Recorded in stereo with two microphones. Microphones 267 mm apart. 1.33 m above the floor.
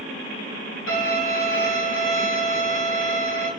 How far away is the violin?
About 1.7 m.